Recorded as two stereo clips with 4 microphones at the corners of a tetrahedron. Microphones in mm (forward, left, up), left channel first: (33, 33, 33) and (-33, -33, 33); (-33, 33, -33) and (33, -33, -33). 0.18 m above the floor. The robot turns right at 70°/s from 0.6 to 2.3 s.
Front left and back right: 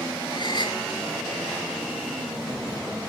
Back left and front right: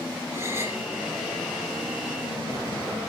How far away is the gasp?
About 4.5 m.